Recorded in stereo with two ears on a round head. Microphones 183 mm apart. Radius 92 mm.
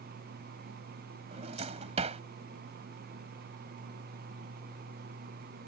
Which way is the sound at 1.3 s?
35° right (ahead or behind).